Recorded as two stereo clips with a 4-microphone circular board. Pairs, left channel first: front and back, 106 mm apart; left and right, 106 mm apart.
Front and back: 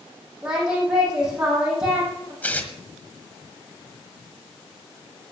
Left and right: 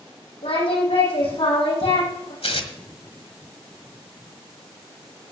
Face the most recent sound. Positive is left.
turn(degrees=75)